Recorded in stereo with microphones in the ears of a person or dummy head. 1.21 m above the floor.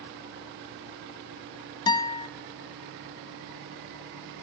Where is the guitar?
25° left (ahead or behind), 1.8 m.